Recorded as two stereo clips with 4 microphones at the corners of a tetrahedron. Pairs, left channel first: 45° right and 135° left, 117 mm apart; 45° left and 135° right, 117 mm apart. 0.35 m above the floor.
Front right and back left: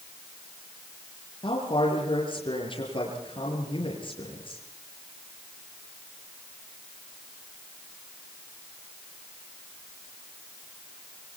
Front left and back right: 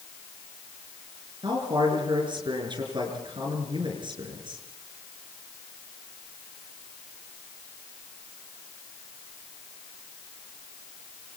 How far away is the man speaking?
About 6 m.